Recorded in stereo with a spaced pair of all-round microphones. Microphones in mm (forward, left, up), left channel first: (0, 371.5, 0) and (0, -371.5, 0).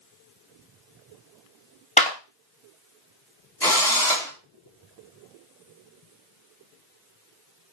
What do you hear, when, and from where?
2.0 s a clap: 10° left (ahead or behind), 0.6 m
3.6 s a drill: 5° left (ahead or behind), 1.2 m